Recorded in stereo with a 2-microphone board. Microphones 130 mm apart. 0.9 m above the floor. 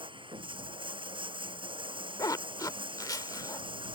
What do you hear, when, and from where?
0.0 s running water: 40° right (ahead or behind)
2.2 s a zipper: 30° left (ahead or behind)